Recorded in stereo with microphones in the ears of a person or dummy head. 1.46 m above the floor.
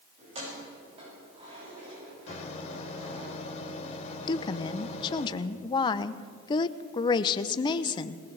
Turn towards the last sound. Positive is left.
turn(degrees=30)  # may be behind; listen again after turning